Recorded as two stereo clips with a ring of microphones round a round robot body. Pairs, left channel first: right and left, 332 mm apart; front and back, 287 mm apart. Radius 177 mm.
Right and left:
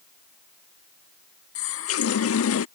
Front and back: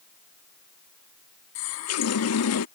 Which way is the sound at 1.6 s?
40° right.